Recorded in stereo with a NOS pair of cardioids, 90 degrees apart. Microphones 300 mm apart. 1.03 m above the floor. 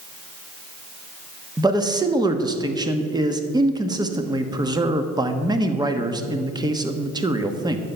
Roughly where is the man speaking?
Ahead.